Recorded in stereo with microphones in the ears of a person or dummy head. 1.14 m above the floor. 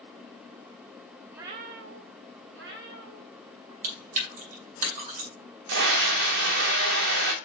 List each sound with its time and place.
1.3 s a cat meowing: 5° right (ahead or behind), 0.5 m; by 3.7 s 60° right (ahead or behind), 2.5 m
3.8 s chewing: 45° right (ahead or behind), 2.5 m
5.7 s a scream: 70° right (ahead or behind), 0.9 m